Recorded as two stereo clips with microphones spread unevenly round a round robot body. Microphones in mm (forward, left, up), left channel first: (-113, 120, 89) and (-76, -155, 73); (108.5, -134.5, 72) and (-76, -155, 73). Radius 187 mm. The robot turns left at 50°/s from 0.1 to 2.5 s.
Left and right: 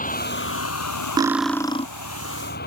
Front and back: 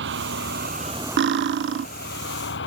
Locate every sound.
0.0 s a vehicle: 155° left; by 2.7 s 35° left
1.2 s cutlery clinking: 160° right; by 1.9 s 165° left